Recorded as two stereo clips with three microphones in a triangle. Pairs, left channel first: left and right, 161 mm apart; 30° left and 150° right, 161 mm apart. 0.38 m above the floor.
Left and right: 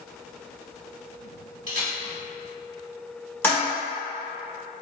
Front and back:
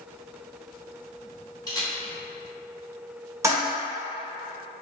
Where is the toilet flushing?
155° left, 1.6 m.